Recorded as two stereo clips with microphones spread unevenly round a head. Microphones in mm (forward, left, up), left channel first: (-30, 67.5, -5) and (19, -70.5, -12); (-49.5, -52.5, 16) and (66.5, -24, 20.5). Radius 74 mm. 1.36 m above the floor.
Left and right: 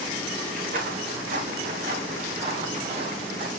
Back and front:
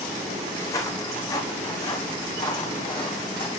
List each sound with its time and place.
0.6 s footsteps: 105° right, 4 m; by 3.5 s 125° right, 3 m